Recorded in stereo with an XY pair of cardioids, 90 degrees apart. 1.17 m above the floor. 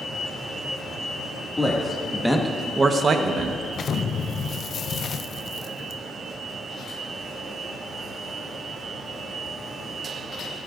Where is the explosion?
55° left, 0.5 m.